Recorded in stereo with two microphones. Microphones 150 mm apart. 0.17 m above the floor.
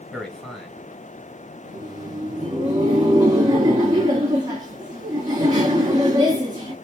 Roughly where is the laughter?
Right.